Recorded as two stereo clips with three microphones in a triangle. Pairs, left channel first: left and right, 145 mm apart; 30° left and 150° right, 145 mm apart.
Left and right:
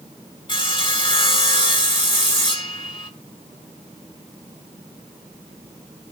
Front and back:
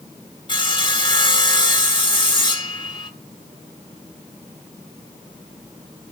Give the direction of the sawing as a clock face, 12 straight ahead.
10 o'clock.